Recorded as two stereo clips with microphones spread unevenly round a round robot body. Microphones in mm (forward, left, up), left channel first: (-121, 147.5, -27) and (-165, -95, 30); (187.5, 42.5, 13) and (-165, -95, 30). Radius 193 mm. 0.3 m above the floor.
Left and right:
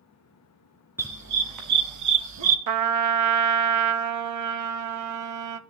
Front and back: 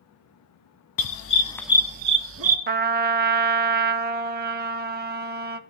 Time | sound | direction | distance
1.0 | a dog barking | 10° right | 1.0 m
2.7 | a trumpet | 90° right | 0.5 m